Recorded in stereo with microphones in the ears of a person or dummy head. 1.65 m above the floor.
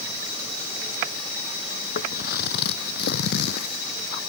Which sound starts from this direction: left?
Footsteps, at 1.9 s.